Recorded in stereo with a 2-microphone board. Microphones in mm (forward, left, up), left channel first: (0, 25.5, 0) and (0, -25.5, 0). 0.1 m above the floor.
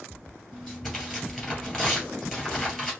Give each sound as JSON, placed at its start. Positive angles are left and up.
{"t": 0.5, "sound": "tearing paper", "side_deg": 0, "distance_m": 2.5}